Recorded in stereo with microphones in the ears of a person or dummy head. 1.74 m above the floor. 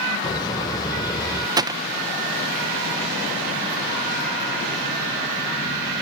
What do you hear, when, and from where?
0.2 s laughter: 30° left (ahead or behind)
1.6 s a gunshot: 25° right (ahead or behind)